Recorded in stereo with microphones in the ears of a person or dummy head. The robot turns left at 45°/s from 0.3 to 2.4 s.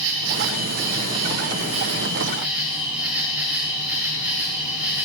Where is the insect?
80° right, 5 m; by 5.0 s 175° right, 5 m.